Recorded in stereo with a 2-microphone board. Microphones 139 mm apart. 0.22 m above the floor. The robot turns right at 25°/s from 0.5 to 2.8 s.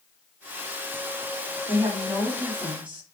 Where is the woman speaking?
15° right (ahead or behind), 1.0 m; by 3.0 s 10° right (ahead or behind), 1.0 m.